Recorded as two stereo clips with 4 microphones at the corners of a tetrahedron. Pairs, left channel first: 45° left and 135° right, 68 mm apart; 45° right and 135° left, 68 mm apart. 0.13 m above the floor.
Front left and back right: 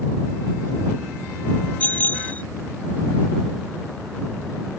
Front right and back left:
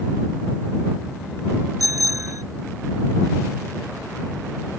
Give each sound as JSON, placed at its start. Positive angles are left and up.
{"t": 1.8, "sound": "a bicycle bell", "azimuth_deg": 110}